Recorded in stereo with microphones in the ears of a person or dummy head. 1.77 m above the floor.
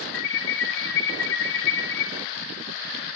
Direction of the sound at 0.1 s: 55° left (ahead or behind).